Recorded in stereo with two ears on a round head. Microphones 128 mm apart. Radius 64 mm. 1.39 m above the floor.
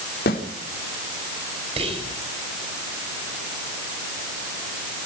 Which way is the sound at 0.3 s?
75° left (ahead or behind).